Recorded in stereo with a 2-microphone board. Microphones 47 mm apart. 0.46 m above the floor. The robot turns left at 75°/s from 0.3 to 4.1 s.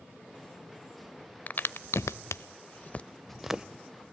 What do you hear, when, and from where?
1.5 s a crack: 35° left (ahead or behind), 0.5 m; by 3.6 s 20° right (ahead or behind), 0.5 m